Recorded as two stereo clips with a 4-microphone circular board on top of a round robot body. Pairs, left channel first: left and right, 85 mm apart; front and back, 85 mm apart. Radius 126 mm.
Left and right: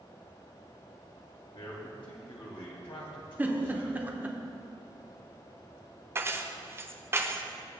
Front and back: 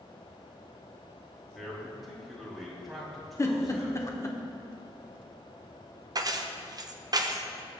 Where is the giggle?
30° right, 1.5 m.